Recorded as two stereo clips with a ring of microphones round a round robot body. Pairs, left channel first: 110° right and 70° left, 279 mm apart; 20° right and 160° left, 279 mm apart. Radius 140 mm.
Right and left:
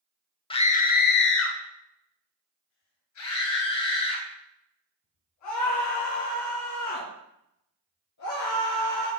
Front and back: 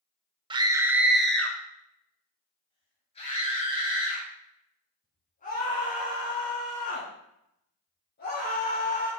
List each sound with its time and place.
0.5 s a scream: 155° right, 0.8 m; by 9.1 s 85° right, 5 m